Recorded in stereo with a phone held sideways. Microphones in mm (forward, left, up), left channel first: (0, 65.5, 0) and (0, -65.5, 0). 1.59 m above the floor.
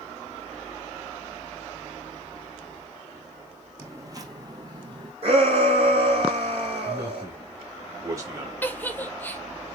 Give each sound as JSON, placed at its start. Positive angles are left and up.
{"t": 3.8, "sound": "footsteps", "side_deg": -25, "distance_m": 3.0}
{"t": 5.2, "sound": "a shout", "side_deg": -50, "distance_m": 4.0}
{"t": 6.8, "sound": "a man speaking", "side_deg": -25, "distance_m": 3.5}
{"t": 8.6, "sound": "a giggle", "side_deg": 15, "distance_m": 1.0}